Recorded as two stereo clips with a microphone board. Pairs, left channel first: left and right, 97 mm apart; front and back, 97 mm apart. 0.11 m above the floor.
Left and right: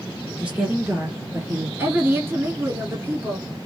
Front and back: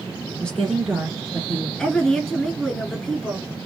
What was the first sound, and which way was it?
A woman speaking, 40° right.